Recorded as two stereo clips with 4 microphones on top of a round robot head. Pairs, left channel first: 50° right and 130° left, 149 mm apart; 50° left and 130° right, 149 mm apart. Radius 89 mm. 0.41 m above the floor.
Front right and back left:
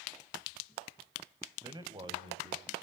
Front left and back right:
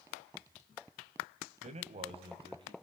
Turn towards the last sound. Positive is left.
turn(degrees=175)